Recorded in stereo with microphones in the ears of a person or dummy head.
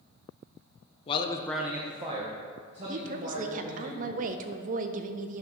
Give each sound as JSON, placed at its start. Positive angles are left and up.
{"t": 1.1, "sound": "a man speaking", "side_deg": 25, "distance_m": 0.6}
{"t": 2.9, "sound": "a woman speaking", "side_deg": -40, "distance_m": 0.5}